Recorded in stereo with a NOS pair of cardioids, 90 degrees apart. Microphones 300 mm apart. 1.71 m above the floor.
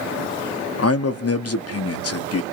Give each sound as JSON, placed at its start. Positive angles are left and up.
{"t": 0.8, "sound": "a man speaking", "azimuth_deg": 50, "distance_m": 1.3}